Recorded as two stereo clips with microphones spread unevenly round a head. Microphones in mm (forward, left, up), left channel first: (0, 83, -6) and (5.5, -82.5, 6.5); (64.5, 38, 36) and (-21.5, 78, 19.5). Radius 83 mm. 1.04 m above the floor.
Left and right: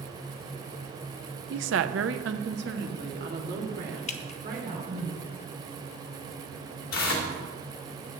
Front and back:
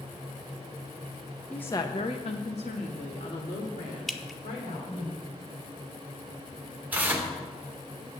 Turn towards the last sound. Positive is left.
turn(degrees=85)